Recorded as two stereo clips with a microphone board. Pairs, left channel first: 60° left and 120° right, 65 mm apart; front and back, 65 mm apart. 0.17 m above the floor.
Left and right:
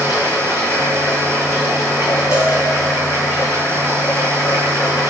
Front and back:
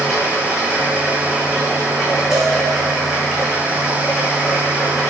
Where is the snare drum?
I don't hear a snare drum.